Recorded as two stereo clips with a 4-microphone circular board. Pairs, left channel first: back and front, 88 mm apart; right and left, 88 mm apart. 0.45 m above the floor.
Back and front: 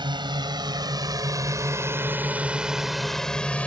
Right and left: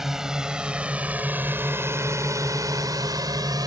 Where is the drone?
5° left; by 3.7 s 110° left.